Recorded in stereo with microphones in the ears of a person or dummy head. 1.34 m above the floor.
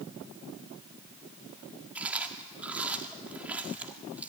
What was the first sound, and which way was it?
Chewing, 5° right (ahead or behind).